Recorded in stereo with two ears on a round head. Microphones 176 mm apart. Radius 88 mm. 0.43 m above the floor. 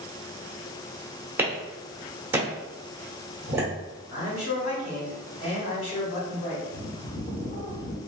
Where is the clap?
10° right (ahead or behind), 0.9 m.